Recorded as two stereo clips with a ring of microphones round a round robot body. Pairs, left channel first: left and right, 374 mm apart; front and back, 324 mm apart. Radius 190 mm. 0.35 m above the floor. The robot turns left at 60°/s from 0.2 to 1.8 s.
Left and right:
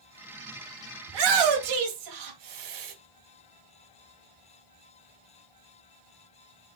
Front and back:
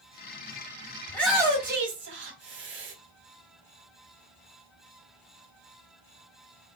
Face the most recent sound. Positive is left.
turn(degrees=-120)